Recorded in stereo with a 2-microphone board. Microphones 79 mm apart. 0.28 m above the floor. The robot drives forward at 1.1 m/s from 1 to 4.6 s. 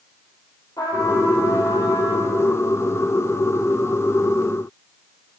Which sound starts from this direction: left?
A trumpet, at 0.8 s.